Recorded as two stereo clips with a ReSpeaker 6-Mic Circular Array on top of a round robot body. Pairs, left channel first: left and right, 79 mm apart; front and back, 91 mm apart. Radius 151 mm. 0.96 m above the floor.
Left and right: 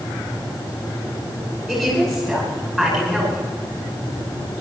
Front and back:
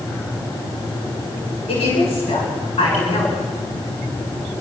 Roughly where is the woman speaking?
Ahead.